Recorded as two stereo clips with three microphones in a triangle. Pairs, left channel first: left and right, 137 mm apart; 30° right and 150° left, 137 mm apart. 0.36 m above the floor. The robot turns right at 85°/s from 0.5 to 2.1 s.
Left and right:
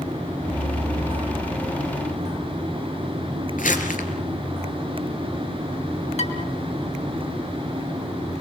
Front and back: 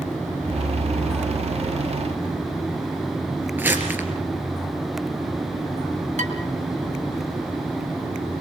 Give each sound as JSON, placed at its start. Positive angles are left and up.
{"t": 3.6, "sound": "crumpling", "azimuth_deg": 75, "distance_m": 4.0}
{"t": 6.2, "sound": "dishes clattering", "azimuth_deg": 120, "distance_m": 3.5}